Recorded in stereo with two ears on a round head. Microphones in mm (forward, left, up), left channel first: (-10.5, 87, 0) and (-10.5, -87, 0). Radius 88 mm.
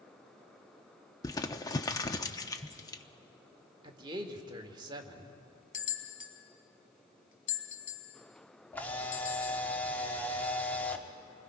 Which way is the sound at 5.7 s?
45° left (ahead or behind).